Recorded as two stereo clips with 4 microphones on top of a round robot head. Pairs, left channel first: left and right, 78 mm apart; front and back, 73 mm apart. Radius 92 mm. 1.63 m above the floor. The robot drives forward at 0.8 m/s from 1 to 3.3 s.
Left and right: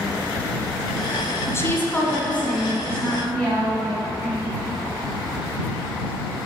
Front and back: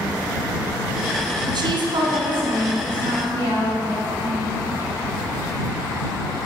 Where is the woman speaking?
145° left, 0.6 m; by 4.5 s 170° left, 2.0 m.